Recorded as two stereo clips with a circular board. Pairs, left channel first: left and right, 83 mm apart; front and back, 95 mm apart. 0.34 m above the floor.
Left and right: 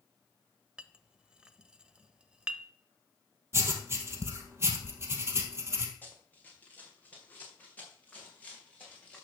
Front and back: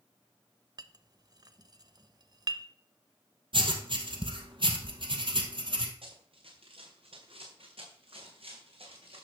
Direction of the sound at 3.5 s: 150° right.